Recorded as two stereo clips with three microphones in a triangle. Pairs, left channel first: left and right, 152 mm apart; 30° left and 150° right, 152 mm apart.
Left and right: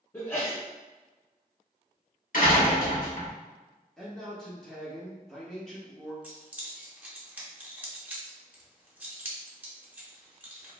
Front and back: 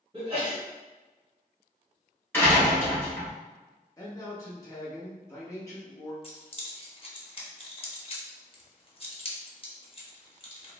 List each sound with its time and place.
0.1 s a sneeze: 150° left, 1.2 m
2.3 s a door slam: 105° left, 1.1 m
4.0 s a man speaking: 5° left, 0.7 m
6.2 s keys jangling: 15° right, 0.7 m